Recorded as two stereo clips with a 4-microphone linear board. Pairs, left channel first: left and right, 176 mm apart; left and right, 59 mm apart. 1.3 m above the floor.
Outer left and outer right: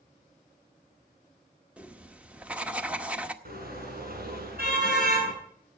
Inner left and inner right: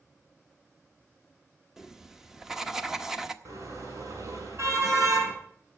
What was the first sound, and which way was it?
Writing, 10° right (ahead or behind).